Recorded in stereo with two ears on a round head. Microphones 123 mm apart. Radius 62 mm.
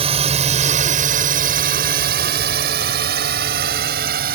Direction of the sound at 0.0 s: 40° right (ahead or behind).